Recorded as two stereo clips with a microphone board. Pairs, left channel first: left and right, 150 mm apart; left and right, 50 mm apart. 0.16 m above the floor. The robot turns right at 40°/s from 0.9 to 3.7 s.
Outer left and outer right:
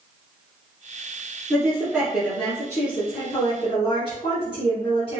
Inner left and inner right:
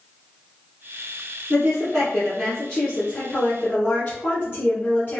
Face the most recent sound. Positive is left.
turn(degrees=60)